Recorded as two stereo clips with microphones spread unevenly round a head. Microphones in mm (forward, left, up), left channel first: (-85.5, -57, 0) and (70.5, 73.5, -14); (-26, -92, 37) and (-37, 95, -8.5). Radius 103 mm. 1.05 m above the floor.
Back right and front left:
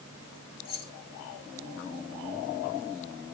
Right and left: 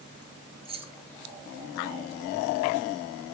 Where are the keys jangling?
155° left, 2 m.